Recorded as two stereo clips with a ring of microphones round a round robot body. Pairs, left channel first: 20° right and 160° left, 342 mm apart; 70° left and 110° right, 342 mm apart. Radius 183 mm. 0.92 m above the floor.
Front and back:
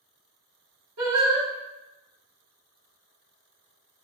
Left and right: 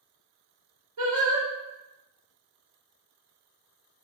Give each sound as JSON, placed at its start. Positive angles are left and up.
{"t": 1.0, "sound": "singing", "azimuth_deg": -155, "distance_m": 1.9}